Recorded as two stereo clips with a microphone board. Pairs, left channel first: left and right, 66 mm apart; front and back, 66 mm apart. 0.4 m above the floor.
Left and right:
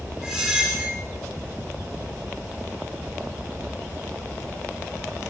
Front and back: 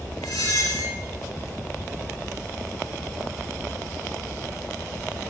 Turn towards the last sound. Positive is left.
turn(degrees=-15)